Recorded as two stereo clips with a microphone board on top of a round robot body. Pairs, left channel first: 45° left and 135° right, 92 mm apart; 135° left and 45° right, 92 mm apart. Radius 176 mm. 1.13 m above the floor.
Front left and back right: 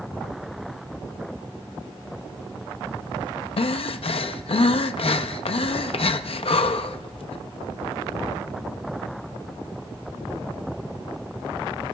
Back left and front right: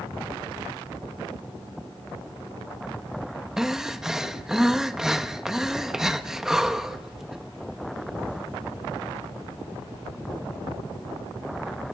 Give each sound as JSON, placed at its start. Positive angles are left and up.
{"t": 3.6, "sound": "breathing", "azimuth_deg": 40, "distance_m": 0.6}